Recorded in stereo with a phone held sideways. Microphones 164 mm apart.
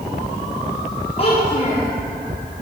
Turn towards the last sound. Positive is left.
turn(degrees=35)  # may be behind; listen again after turning